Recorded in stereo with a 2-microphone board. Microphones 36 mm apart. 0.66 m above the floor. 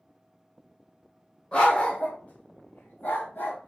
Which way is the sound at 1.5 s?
35° left (ahead or behind).